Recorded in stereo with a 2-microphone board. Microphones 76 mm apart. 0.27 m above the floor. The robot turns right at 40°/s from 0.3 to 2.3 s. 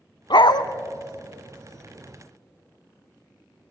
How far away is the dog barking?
About 0.8 m.